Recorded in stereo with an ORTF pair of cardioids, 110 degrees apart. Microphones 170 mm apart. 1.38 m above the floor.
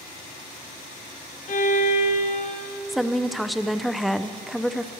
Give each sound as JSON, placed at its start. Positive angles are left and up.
{"t": 1.5, "sound": "a violin", "azimuth_deg": 45, "distance_m": 1.4}
{"t": 2.9, "sound": "a woman speaking", "azimuth_deg": 0, "distance_m": 0.6}